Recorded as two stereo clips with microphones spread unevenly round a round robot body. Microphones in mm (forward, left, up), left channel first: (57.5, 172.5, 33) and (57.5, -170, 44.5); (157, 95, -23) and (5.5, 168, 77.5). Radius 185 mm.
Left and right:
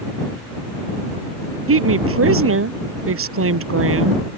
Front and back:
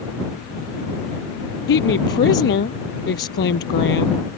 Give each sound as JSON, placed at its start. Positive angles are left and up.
{"t": 1.7, "sound": "a woman speaking", "azimuth_deg": -35}